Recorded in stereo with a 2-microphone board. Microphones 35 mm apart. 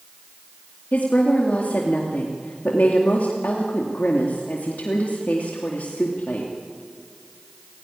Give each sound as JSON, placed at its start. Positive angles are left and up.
{"t": 0.9, "sound": "a woman speaking", "side_deg": 55, "distance_m": 2.5}